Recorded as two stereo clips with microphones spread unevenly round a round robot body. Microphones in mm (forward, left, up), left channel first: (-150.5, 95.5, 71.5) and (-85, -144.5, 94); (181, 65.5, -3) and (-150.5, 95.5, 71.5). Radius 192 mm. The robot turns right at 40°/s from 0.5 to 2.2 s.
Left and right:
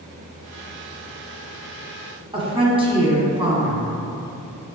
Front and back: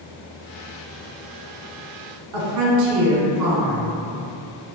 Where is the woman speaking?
145° right, 1.3 m.